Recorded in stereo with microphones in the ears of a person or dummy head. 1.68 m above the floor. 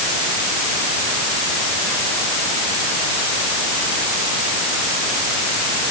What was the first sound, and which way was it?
Only background noise.